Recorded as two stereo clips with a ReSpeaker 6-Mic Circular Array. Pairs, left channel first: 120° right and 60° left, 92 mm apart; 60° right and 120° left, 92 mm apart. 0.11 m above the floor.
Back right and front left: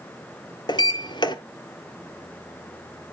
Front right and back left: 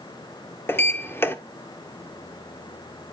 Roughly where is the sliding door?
Behind right.